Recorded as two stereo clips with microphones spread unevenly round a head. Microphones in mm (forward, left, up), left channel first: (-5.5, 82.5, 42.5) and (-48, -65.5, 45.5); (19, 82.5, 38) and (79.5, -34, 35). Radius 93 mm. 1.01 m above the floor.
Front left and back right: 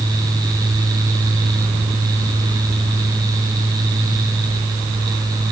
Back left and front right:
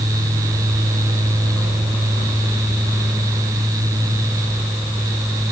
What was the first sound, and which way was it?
Only background noise.